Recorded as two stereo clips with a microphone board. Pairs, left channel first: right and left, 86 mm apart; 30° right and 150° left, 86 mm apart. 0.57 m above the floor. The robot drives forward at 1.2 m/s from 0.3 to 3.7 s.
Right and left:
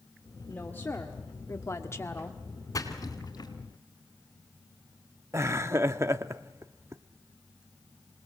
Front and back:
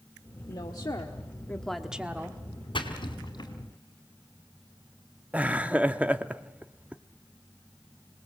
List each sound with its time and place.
0.5 s a woman speaking: 25° right, 1.6 m; by 2.4 s 150° right, 1.5 m
2.7 s a splash: 45° right, 3 m; by 3.5 s 60° right, 2 m
5.3 s laughter: 90° left, 0.7 m